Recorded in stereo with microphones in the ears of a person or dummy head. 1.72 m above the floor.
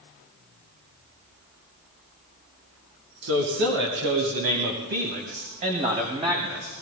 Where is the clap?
No clap in this recording.